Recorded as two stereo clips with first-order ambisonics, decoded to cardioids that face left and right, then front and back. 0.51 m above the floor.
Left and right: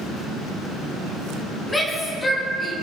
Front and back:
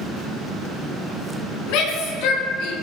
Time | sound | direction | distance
1.7 | a shout | 10° left | 6 m